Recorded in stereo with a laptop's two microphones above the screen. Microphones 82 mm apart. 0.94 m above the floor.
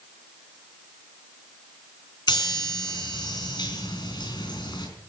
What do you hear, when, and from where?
2.3 s a chime: 60° left (ahead or behind), 3.5 m